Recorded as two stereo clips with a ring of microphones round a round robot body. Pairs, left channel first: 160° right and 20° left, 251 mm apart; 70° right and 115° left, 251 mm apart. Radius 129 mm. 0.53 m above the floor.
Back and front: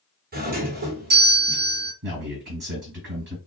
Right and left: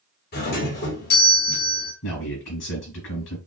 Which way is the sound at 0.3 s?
25° right.